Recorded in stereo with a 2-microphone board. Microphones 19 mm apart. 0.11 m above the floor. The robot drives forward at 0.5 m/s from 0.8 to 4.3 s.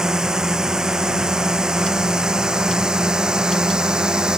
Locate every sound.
0.0 s a drone: 35° right (ahead or behind); by 4.4 s 40° right (ahead or behind)